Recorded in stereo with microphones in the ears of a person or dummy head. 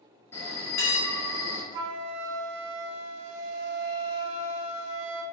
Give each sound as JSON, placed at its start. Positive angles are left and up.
{"t": 0.3, "sound": "a bell", "side_deg": 10, "distance_m": 0.7}
{"t": 1.7, "sound": "a flute", "side_deg": -85, "distance_m": 0.6}